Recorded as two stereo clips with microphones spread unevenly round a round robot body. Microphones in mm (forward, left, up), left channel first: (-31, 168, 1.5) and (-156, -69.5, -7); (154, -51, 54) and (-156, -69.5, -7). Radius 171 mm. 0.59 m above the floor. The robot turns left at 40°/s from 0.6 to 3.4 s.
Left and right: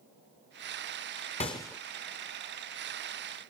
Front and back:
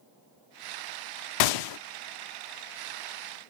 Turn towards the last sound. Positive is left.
turn(degrees=-90)